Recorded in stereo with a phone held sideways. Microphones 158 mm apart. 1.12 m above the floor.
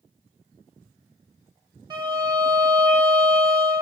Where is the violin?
25° right (ahead or behind), 1.2 m.